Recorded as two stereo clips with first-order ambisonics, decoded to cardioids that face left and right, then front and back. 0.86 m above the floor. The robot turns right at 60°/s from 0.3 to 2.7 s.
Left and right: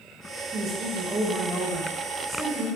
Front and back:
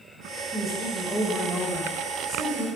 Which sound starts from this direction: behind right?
A woman speaking, at 0.5 s.